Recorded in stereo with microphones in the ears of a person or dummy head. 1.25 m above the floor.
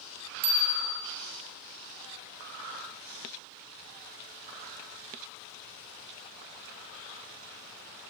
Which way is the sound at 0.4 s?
60° right (ahead or behind).